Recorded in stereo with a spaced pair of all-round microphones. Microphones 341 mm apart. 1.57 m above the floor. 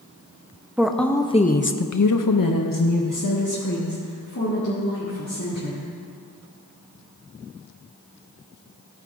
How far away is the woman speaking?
About 0.8 m.